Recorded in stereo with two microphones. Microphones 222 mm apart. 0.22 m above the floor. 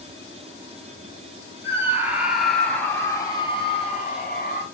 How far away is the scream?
About 1.8 m.